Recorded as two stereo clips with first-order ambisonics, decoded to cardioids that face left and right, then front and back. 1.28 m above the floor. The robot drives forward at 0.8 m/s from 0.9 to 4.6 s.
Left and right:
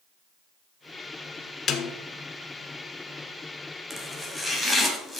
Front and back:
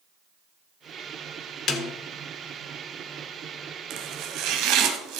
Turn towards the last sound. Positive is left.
turn(degrees=-175)